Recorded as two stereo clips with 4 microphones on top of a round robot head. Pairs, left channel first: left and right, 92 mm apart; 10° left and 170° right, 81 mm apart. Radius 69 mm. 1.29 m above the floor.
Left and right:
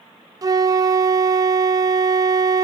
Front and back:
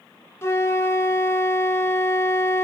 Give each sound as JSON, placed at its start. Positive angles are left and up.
{"t": 0.4, "sound": "a flute", "azimuth_deg": -45, "distance_m": 0.6}